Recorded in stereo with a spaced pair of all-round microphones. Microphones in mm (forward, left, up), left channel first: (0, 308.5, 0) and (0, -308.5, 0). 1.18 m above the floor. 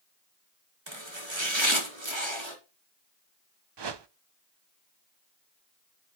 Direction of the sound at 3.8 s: 45° right (ahead or behind).